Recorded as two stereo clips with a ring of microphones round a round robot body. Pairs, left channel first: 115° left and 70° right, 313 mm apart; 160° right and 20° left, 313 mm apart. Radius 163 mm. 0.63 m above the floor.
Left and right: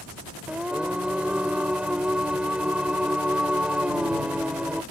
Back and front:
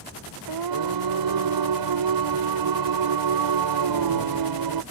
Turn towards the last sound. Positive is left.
turn(degrees=20)